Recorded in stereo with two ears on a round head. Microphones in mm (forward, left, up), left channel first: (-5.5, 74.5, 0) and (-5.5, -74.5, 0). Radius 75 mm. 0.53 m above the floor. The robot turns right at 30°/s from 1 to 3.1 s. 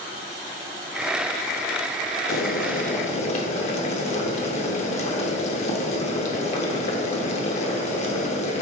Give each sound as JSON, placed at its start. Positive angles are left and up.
{"t": 2.3, "sound": "boiling", "side_deg": 60, "distance_m": 0.6}